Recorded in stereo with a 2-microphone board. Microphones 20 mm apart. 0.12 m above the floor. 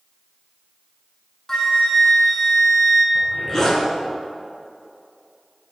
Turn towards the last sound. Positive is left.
turn(degrees=25)  # may be behind; listen again after turning